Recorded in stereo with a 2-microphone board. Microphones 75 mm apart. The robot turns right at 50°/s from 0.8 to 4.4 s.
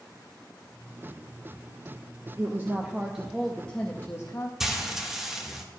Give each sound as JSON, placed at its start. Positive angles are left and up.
{"t": 2.4, "sound": "a woman speaking", "azimuth_deg": -50, "distance_m": 0.7}
{"t": 4.6, "sound": "frying", "side_deg": -5, "distance_m": 1.1}